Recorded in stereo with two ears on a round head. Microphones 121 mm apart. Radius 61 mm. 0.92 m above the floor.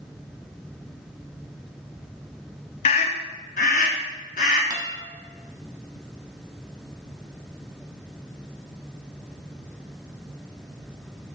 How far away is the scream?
About 0.8 m.